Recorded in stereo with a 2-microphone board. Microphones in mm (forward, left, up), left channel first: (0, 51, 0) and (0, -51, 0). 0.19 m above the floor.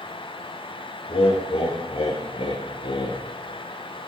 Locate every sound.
1.1 s laughter: 65° left (ahead or behind), 4.5 m; by 3.2 s 55° left (ahead or behind), 2.5 m